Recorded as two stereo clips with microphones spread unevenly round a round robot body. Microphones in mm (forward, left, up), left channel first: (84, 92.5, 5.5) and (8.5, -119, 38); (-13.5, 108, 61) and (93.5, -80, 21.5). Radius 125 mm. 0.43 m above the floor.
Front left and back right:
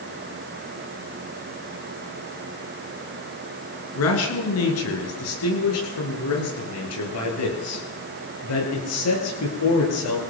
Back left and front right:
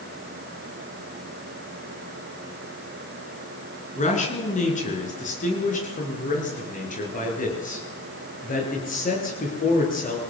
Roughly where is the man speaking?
Ahead left.